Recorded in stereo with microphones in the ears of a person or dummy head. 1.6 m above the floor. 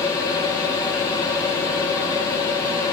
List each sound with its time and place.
0.0 s a machine running: 25° left (ahead or behind), 2.5 m